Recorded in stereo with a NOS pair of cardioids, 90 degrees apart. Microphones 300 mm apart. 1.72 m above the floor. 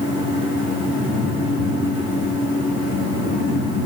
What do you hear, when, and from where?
0.0 s a fan: 55° left, 7.5 m